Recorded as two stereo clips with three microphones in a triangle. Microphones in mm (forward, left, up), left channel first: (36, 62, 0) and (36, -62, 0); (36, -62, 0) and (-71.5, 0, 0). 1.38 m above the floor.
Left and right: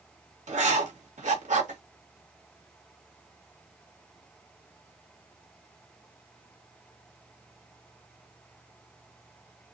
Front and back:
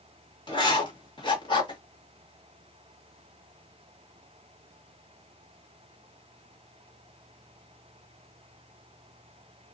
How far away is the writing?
About 2 m.